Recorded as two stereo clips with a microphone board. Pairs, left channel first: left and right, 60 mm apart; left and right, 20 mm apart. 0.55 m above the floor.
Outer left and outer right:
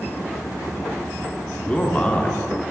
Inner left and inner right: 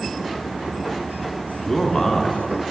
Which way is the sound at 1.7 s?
20° left (ahead or behind).